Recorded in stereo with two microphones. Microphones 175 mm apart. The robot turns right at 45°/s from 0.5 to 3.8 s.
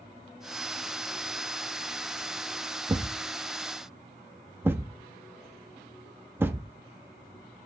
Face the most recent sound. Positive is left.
turn(degrees=-15)  # may be behind; listen again after turning